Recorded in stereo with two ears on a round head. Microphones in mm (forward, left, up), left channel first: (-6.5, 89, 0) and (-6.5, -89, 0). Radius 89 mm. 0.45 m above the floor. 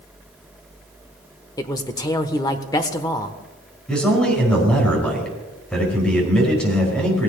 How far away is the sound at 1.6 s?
About 1.0 m.